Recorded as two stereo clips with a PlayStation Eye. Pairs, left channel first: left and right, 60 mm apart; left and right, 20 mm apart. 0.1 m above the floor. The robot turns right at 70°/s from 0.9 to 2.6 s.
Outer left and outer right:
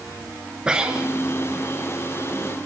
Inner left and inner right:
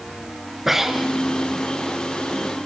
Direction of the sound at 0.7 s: 15° right (ahead or behind).